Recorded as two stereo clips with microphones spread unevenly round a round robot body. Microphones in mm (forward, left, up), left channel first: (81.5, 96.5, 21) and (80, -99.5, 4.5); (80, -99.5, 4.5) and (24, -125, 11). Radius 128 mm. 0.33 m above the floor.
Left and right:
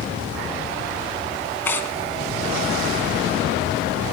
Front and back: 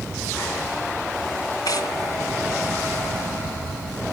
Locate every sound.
1.6 s tearing paper: 10° left, 1.5 m